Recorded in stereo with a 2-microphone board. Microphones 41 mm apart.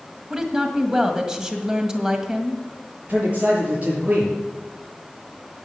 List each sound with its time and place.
0.3 s a woman speaking: 15° right (ahead or behind), 1.7 m
3.1 s a man speaking: 35° right (ahead or behind), 6.5 m